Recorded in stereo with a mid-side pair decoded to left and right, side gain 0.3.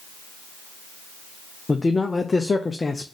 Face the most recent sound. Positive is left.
turn(degrees=35)